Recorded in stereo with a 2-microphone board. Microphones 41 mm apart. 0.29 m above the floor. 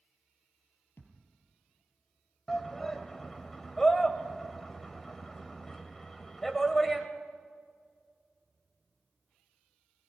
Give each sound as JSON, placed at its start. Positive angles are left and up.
{"t": 1.0, "sound": "a thud", "side_deg": 70, "distance_m": 3.5}
{"t": 2.5, "sound": "a shout", "side_deg": 10, "distance_m": 1.1}